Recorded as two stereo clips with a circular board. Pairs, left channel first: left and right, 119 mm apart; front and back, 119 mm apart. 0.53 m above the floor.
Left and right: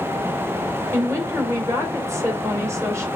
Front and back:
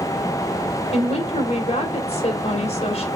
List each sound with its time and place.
0.9 s a woman speaking: 25° right, 2 m